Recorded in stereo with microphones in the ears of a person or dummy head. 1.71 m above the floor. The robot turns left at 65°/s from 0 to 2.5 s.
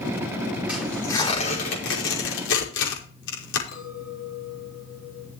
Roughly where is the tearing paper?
Centre.